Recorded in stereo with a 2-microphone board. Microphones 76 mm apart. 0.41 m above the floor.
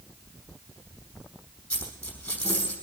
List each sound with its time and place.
1.7 s a dropped coin: 15° left (ahead or behind), 5 m